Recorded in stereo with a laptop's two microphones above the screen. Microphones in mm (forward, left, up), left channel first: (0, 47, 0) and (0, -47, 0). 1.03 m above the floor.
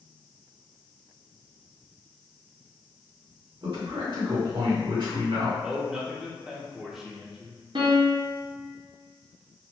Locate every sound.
3.6 s a man speaking: 60° right (ahead or behind), 1.5 m
5.6 s a man speaking: 5° right (ahead or behind), 0.9 m
7.8 s a piano: 60° right (ahead or behind), 0.8 m